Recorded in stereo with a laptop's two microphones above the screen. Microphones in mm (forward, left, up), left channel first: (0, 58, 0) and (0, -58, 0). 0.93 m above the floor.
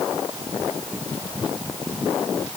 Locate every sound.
Only background noise.